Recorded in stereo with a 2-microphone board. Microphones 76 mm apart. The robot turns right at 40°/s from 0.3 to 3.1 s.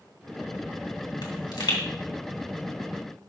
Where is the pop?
70° left (ahead or behind), 2.5 m; by 1.8 s 85° left, 2.5 m.